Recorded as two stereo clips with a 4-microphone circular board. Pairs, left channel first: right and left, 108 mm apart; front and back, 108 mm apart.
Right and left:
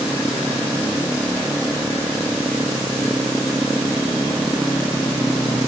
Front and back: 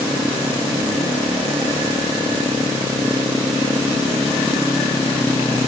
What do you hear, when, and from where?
Only background noise.